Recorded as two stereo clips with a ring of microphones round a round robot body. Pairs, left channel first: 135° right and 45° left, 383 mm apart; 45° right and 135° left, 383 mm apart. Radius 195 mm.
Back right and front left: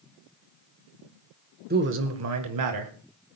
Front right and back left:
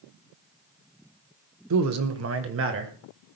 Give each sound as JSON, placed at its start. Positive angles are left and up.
{"t": 1.7, "sound": "a man speaking", "azimuth_deg": 105, "distance_m": 1.2}